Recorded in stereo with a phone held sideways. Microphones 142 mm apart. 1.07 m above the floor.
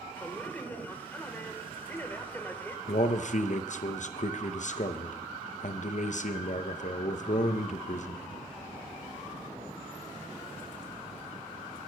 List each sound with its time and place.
0.1 s a man speaking: 10° left (ahead or behind), 1.1 m
2.9 s a man speaking: 60° left (ahead or behind), 0.6 m